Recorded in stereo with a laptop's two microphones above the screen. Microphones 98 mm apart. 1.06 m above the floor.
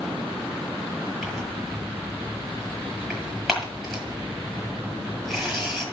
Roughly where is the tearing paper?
Centre.